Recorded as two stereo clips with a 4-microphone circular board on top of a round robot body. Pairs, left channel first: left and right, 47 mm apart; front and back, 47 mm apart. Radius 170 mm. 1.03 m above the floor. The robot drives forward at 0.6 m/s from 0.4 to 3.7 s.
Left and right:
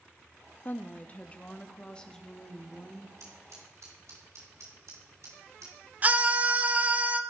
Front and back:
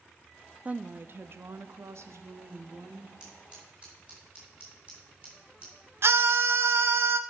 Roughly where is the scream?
Behind right.